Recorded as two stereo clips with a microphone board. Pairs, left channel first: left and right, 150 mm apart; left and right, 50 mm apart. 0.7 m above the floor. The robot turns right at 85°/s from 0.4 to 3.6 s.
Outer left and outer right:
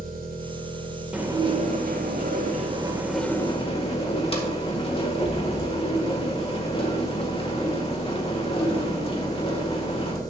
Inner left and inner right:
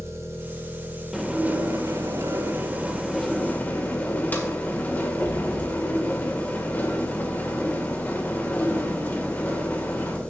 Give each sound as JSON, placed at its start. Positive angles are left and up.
{"t": 0.0, "sound": "an engine running", "azimuth_deg": -115, "distance_m": 2.0}
{"t": 1.1, "sound": "dishes clattering", "azimuth_deg": -175, "distance_m": 1.8}